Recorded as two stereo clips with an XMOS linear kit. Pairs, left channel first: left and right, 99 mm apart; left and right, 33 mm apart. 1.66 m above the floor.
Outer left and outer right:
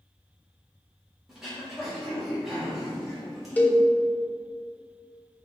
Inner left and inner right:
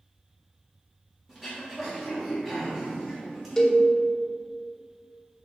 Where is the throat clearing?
Centre (ahead or behind), 2 m.